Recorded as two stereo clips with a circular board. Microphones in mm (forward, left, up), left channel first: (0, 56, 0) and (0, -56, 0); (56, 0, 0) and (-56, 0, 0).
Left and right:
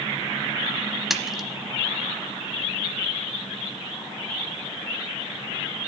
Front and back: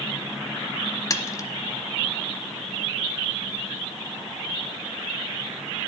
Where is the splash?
5° right, 0.8 m.